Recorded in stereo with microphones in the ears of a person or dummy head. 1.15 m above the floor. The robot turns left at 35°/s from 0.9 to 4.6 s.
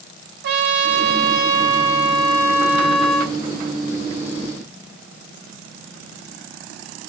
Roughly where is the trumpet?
Right.